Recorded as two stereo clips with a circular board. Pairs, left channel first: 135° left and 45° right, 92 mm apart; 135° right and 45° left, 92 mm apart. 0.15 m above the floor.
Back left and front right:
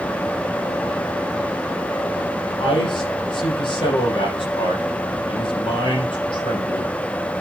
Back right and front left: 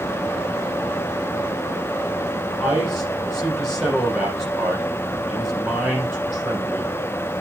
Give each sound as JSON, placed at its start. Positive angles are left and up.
{"t": 2.6, "sound": "a man speaking", "azimuth_deg": 130, "distance_m": 6.5}